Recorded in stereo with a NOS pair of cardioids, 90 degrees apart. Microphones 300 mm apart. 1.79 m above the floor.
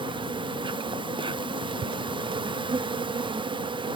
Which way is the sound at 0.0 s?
15° right.